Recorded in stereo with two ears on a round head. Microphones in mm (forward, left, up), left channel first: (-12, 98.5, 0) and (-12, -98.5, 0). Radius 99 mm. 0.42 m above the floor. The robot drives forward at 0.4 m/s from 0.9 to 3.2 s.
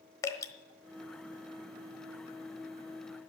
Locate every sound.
0.2 s dripping: 15° left (ahead or behind), 1.1 m